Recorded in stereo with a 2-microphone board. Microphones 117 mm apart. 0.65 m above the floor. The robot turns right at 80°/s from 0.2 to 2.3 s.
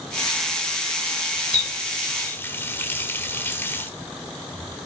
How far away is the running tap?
About 1.2 m.